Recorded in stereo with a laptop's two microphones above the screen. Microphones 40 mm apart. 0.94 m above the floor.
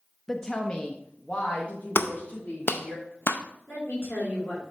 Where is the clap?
70° left (ahead or behind), 0.5 m.